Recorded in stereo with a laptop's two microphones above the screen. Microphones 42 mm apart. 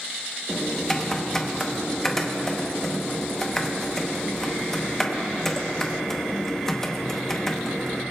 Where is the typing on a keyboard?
10° left (ahead or behind), 0.9 m.